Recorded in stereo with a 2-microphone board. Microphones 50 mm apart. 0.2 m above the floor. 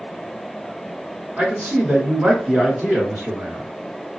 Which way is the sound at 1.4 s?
45° right (ahead or behind).